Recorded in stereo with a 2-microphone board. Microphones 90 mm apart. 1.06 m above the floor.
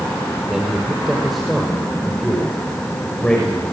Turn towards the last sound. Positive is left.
turn(degrees=10)  # may be behind; listen again after turning